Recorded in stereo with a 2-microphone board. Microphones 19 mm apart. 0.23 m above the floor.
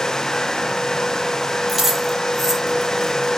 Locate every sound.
1.7 s keys jangling: 10° right (ahead or behind), 4.5 m; by 3.3 s 15° left (ahead or behind), 3.5 m